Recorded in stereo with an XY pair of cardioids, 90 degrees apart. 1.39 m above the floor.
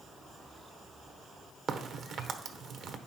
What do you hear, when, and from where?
1.7 s a crack: 70° right, 1.0 m